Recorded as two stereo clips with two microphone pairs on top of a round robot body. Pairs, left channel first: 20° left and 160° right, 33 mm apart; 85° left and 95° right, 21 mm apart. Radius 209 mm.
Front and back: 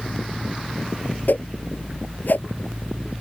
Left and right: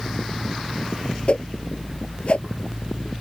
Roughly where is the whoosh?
Ahead left.